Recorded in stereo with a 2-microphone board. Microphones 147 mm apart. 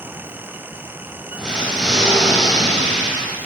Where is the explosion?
5° left (ahead or behind), 0.7 m.